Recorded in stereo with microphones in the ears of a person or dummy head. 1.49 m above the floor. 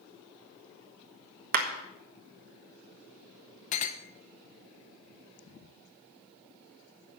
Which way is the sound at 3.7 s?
40° left (ahead or behind).